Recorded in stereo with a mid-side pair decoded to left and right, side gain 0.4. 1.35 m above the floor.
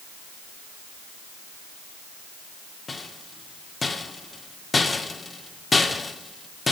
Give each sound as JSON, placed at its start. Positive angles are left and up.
{"t": 2.9, "sound": "a rattle", "azimuth_deg": 35, "distance_m": 1.9}